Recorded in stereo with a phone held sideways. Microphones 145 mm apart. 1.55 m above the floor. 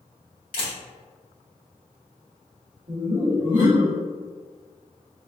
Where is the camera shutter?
75° left (ahead or behind), 1.6 m.